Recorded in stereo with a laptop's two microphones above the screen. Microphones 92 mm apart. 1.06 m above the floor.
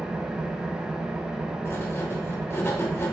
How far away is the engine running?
About 1.0 m.